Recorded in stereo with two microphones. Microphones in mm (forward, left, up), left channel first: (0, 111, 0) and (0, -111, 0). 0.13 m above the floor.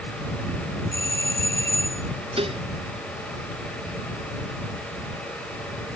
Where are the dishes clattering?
25° right (ahead or behind).